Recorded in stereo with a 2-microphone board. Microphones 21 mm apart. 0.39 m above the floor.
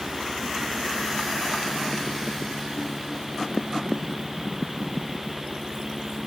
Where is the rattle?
I don't hear a rattle.